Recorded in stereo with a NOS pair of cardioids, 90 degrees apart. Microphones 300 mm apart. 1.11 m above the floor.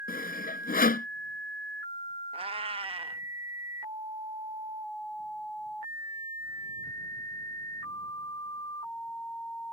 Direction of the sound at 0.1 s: 30° left.